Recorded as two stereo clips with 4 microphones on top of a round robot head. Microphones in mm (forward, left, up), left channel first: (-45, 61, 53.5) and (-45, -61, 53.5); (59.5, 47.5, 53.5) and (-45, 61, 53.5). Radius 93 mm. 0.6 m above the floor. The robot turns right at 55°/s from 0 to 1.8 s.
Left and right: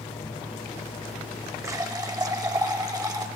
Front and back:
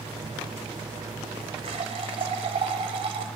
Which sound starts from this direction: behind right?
A running tap, at 1.6 s.